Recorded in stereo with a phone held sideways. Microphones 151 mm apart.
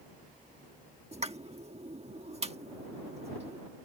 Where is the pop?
45° right (ahead or behind).